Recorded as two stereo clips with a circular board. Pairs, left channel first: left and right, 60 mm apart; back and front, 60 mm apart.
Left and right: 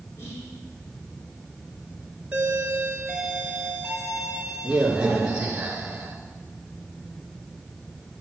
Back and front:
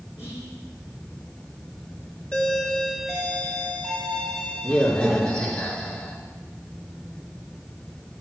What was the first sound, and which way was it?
Whispering, 130° left.